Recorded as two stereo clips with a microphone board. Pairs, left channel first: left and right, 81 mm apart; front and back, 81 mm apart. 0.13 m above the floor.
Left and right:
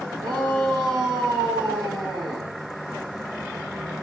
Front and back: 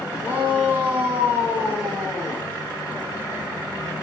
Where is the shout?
115° right, 6 m.